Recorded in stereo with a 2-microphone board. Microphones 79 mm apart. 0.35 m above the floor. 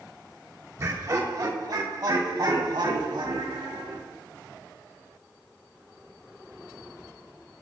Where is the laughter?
40° right (ahead or behind), 1.5 m; by 4.0 s 70° right (ahead or behind), 3.5 m.